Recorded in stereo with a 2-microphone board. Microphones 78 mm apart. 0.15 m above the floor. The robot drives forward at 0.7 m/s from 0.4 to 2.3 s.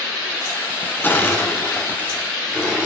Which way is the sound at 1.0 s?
20° left (ahead or behind).